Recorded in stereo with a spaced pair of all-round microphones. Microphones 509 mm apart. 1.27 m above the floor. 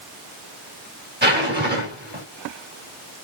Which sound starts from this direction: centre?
A zipper, at 1.2 s.